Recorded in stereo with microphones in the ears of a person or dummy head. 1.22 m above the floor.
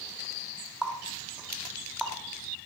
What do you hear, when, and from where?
0.8 s a running tap: centre (ahead or behind), 1.4 m